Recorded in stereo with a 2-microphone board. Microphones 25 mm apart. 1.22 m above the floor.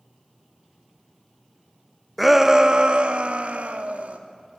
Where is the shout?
Centre (ahead or behind), 0.8 m; by 4.2 s 70° right (ahead or behind), 2 m.